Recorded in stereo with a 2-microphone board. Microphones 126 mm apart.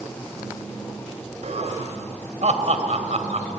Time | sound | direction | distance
1.4 | laughter | 60° right (ahead or behind) | 2.5 m